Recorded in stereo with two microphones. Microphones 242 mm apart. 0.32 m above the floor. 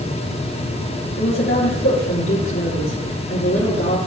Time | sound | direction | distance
1.2 | a woman speaking | 55° left (ahead or behind) | 5 m